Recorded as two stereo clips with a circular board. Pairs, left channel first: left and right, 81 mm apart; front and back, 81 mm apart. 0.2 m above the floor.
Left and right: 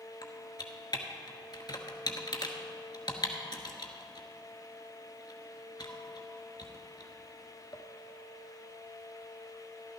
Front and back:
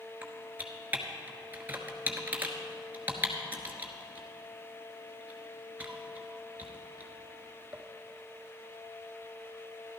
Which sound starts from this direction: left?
Typing on a keyboard, at 0.2 s.